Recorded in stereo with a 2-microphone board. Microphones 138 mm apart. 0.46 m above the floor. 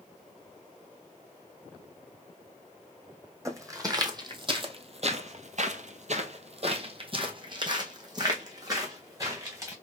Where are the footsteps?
20° right (ahead or behind), 1.4 m.